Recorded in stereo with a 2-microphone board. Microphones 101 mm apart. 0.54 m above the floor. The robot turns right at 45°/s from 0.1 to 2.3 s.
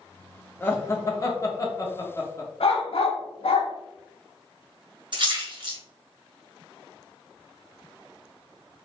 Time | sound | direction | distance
0.6 | laughter | 20° left (ahead or behind) | 0.7 m
2.6 | a dog barking | 70° left (ahead or behind) | 0.7 m
5.1 | a splash | 50° right (ahead or behind) | 1.0 m